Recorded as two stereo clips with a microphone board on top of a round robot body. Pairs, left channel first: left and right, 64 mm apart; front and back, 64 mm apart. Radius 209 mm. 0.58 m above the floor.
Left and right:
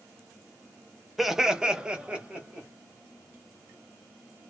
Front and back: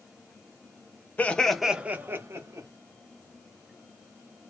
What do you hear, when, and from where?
1.2 s laughter: 10° right, 1.0 m; by 2.7 s 160° right, 1.5 m